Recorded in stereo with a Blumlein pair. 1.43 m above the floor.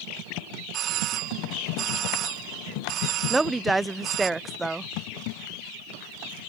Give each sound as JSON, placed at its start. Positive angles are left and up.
{"t": 0.7, "sound": "a doorbell", "azimuth_deg": -35}
{"t": 3.3, "sound": "a woman speaking", "azimuth_deg": -10}